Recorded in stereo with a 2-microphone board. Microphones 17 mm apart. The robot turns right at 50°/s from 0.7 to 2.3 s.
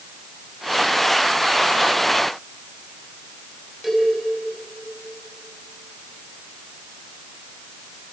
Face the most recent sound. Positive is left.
turn(degrees=-15)  # may be behind; listen again after turning